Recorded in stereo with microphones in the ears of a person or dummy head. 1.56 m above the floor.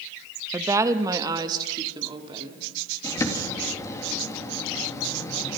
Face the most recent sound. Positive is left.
turn(degrees=15)  # may be behind; listen again after turning